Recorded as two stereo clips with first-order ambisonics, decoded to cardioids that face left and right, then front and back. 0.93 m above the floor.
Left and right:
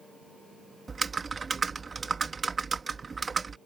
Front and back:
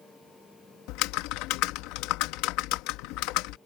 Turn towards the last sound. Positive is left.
turn(degrees=-15)